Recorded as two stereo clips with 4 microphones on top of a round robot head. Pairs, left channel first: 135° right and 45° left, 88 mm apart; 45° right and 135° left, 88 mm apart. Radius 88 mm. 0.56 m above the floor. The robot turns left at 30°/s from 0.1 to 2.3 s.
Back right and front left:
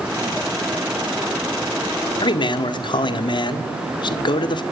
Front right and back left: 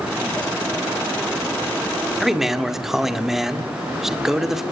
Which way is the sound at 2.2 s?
140° right.